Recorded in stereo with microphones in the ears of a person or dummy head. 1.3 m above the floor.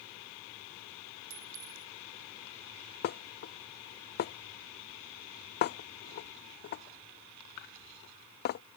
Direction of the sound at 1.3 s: 65° right (ahead or behind).